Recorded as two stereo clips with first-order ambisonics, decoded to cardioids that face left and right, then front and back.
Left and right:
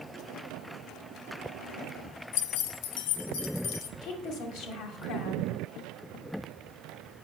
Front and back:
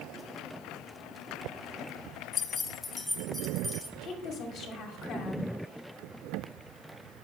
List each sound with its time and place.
2.3 s keys jangling: 60° left, 0.7 m; by 3.9 s 95° left, 1.2 m
4.0 s a woman speaking: 55° left, 2 m